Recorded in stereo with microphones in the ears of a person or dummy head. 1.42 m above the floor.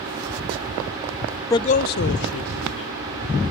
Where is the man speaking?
20° left (ahead or behind), 0.5 m; by 3.4 s 85° left, 2.5 m.